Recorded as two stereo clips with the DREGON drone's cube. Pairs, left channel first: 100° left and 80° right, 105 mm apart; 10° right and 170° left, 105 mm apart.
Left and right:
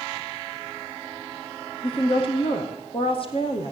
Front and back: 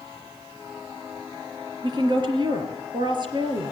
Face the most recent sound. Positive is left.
turn(degrees=130)